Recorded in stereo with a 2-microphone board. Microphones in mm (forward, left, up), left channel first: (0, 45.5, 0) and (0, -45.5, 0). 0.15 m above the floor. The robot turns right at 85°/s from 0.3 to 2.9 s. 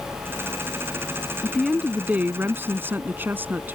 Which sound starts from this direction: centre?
A woman speaking, at 1.4 s.